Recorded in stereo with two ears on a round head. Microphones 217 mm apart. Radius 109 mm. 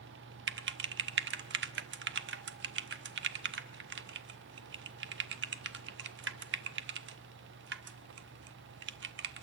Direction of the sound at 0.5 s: 45° right (ahead or behind).